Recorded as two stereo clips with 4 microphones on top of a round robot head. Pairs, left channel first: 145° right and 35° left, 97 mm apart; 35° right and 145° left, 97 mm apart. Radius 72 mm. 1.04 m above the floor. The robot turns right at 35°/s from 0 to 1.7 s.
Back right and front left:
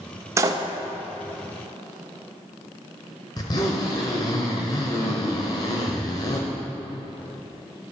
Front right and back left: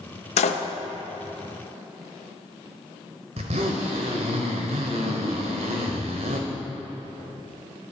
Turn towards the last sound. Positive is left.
turn(degrees=165)